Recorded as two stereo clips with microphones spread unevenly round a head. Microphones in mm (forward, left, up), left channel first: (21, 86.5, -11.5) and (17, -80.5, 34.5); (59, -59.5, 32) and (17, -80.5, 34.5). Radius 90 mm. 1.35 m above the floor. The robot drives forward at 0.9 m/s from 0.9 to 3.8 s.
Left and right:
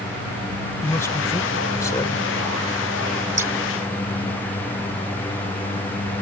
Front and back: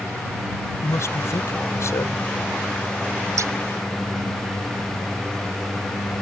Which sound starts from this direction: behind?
Scissors, at 3.4 s.